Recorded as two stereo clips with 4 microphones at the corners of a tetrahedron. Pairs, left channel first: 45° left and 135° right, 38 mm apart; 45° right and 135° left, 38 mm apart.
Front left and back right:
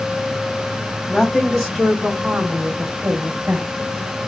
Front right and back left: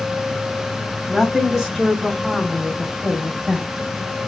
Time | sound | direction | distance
1.1 | a woman speaking | 65° left | 1.3 m